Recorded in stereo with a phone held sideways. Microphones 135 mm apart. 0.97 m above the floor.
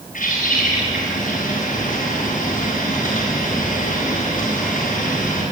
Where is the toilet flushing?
I don't hear a toilet flushing.